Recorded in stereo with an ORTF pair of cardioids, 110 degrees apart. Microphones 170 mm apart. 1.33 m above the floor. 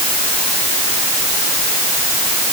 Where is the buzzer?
I don't hear a buzzer.